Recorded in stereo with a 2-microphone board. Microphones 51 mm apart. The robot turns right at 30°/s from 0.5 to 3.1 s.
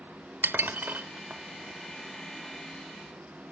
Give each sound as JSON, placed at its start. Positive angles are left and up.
{"t": 0.4, "sound": "dishes clattering", "side_deg": -45, "distance_m": 0.9}